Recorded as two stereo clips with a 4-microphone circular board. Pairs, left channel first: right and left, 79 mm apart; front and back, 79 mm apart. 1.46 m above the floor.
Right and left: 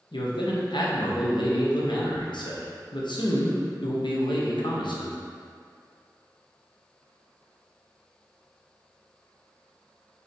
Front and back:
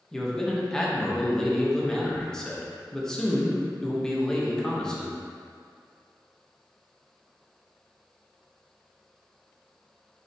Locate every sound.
0.1 s a man speaking: 80° right, 0.7 m